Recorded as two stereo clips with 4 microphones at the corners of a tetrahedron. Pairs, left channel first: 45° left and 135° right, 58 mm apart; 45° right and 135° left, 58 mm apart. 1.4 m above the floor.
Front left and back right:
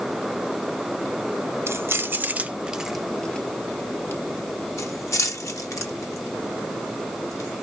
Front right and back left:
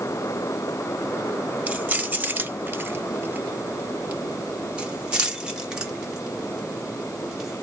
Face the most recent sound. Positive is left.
turn(degrees=55)